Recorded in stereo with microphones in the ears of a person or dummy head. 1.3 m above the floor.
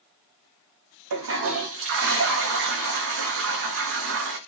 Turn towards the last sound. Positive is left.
turn(degrees=-55)  # may be behind; listen again after turning